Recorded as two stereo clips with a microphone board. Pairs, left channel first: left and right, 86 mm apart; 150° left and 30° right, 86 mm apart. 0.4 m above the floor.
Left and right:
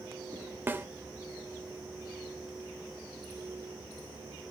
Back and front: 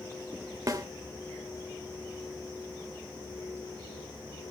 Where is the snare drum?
35° right, 1.1 m.